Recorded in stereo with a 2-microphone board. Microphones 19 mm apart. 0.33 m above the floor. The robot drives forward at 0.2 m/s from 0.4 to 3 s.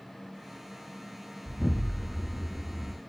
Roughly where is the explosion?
Centre.